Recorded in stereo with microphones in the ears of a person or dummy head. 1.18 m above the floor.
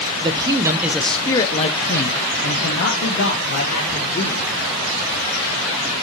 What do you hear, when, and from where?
0.2 s a man speaking: 25° right (ahead or behind), 1.0 m; by 4.5 s 60° left (ahead or behind), 2.5 m